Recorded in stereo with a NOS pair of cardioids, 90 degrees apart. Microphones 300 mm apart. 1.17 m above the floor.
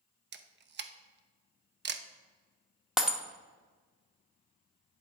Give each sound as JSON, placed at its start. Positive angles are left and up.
{"t": 0.3, "sound": "a camera shutter", "azimuth_deg": -35, "distance_m": 0.7}
{"t": 3.0, "sound": "breaking glass", "azimuth_deg": 0, "distance_m": 1.0}